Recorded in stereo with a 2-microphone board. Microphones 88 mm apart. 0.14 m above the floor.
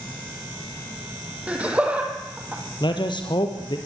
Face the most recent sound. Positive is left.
turn(degrees=60)  # may be behind; listen again after turning